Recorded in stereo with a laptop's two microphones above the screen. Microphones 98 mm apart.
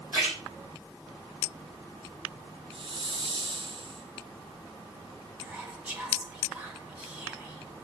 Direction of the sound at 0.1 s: 25° right (ahead or behind).